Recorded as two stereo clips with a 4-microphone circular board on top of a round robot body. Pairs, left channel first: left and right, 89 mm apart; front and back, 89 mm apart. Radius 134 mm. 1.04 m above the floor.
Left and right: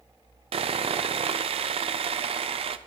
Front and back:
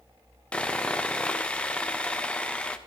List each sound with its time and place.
0.5 s sawing: 80° right, 0.5 m